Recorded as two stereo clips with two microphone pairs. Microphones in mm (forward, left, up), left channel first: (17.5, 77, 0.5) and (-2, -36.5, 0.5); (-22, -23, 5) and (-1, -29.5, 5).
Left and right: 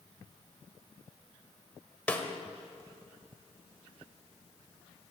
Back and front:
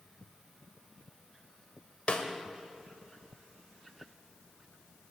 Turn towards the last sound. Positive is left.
turn(degrees=155)